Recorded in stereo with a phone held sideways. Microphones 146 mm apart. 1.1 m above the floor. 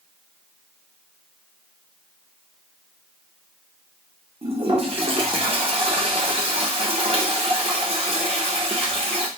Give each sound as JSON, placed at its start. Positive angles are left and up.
{"t": 4.4, "sound": "a toilet flushing", "side_deg": -45, "distance_m": 1.0}